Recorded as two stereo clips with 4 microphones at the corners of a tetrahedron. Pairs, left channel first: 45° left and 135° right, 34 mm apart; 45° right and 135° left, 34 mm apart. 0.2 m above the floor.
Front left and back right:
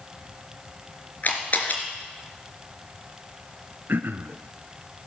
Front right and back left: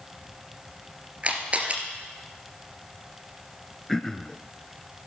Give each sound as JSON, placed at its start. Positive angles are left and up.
{"t": 1.2, "sound": "a camera shutter", "azimuth_deg": 80, "distance_m": 2.5}
{"t": 3.9, "sound": "throat clearing", "azimuth_deg": -130, "distance_m": 0.8}